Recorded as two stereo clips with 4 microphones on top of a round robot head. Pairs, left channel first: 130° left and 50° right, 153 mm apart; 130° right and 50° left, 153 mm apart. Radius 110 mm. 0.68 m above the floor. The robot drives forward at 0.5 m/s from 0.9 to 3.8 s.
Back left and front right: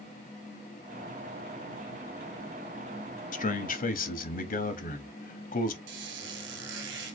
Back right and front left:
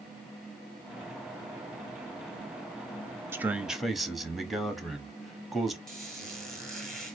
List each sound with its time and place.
3.3 s a man speaking: 120° left, 0.7 m; by 5.8 s 135° left, 0.9 m
5.9 s a squeak: 45° right, 1.1 m